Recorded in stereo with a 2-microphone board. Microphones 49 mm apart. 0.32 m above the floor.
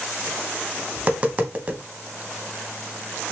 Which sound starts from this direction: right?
Tapping, at 1.0 s.